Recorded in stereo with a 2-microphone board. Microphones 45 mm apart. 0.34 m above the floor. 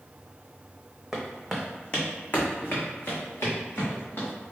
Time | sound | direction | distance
1.1 | footsteps | 5° right (ahead or behind) | 0.8 m